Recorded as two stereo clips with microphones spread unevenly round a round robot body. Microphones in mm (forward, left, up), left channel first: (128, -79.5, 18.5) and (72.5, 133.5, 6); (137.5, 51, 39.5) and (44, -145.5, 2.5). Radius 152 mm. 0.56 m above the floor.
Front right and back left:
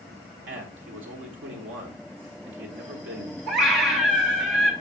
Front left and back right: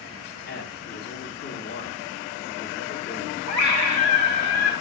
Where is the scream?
150° left, 1.8 m.